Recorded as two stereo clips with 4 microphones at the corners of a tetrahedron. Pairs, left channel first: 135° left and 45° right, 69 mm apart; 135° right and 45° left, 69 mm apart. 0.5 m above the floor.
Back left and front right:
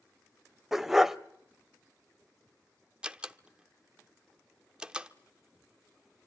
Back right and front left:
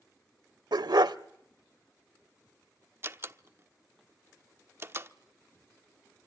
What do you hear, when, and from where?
0.7 s a dog barking: 40° left, 0.6 m
3.0 s a door slam: 25° left, 0.7 m